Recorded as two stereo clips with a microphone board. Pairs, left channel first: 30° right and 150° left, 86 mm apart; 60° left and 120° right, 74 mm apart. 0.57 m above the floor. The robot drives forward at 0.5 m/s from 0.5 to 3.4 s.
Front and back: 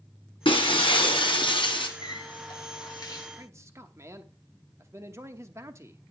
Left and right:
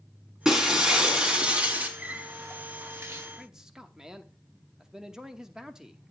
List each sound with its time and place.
0.5 s breaking glass: 40° right, 2.5 m; by 1.9 s 50° right, 2 m
2.0 s a running tap: 50° right, 1.7 m; by 3.3 s 70° right, 1.4 m
3.4 s a man speaking: 165° left, 0.9 m